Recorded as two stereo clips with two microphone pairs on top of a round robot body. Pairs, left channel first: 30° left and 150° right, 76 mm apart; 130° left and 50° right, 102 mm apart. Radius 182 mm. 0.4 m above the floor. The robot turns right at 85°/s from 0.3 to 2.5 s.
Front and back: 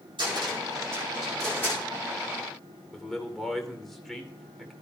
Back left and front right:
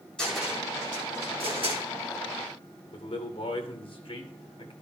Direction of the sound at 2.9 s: 110° left.